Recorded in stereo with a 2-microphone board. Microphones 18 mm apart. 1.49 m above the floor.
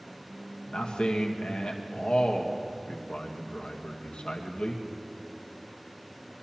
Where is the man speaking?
75° left (ahead or behind), 1.3 m.